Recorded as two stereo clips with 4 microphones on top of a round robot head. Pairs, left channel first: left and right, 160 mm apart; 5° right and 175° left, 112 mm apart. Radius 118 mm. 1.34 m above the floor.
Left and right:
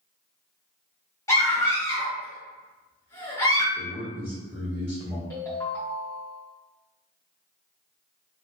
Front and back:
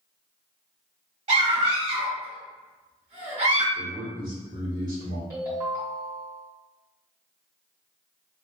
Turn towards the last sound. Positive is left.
turn(degrees=150)